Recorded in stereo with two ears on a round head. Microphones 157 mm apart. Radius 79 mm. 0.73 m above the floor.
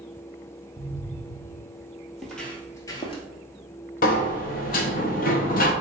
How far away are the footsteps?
About 1.1 m.